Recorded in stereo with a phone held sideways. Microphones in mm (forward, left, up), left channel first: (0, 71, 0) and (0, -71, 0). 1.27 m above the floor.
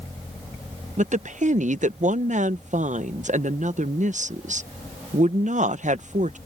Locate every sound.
1.0 s a woman speaking: 60° right (ahead or behind)